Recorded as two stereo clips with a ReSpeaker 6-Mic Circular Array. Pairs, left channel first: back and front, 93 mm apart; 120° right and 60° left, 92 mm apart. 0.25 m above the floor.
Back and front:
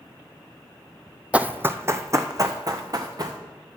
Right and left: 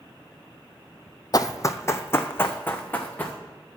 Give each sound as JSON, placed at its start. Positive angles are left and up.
{"t": 1.3, "sound": "running footsteps", "azimuth_deg": -75, "distance_m": 0.5}